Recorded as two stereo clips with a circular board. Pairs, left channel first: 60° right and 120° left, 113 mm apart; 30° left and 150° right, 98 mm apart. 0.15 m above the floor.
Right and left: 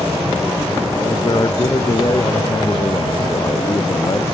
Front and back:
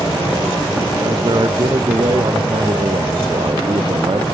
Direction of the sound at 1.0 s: 110° right.